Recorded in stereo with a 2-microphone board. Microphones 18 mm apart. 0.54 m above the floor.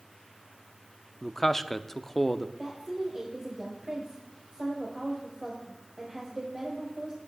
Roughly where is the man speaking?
Centre.